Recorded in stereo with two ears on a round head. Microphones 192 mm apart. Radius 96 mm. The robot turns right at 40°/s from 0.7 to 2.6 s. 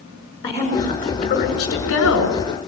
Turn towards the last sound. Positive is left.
turn(degrees=90)